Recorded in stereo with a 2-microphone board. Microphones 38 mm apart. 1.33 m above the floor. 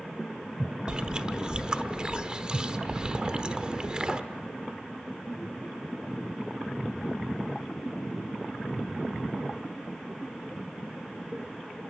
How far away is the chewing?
About 1.0 m.